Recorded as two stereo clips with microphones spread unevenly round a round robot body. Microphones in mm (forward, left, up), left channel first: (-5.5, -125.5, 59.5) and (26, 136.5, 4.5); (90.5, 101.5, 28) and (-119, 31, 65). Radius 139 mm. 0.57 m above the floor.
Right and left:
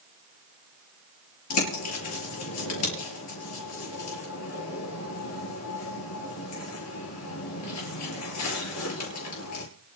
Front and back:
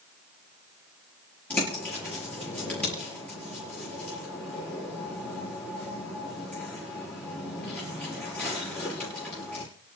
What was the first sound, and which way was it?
A bird, 65° right.